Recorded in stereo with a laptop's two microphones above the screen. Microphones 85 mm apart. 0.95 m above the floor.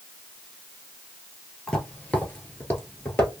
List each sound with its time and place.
1.7 s footsteps: 15° left (ahead or behind), 1.1 m; by 3.4 s 25° left (ahead or behind), 1.2 m